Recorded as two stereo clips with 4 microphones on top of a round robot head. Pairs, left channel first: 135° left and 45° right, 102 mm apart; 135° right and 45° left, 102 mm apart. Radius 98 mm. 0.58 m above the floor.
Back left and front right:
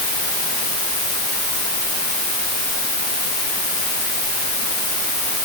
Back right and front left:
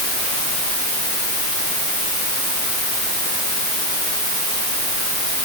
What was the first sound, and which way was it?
Only background noise.